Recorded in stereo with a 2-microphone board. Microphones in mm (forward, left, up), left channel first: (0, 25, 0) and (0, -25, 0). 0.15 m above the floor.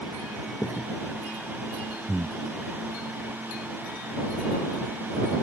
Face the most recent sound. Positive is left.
turn(degrees=-55)  # may be behind; listen again after turning